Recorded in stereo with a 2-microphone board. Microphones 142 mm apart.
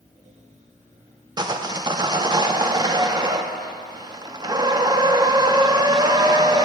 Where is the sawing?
25° right (ahead or behind), 0.5 m.